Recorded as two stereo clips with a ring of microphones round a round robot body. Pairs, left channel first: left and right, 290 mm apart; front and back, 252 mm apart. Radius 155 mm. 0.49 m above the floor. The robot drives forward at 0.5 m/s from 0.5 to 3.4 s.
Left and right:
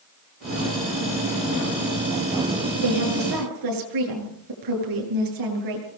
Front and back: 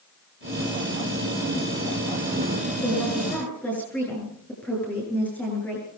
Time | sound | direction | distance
2.8 | a woman speaking | 85° right | 8 m